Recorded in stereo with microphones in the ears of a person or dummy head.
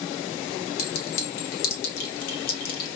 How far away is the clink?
About 1.6 m.